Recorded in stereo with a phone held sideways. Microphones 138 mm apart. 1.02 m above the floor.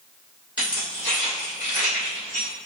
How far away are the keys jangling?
About 2.0 m.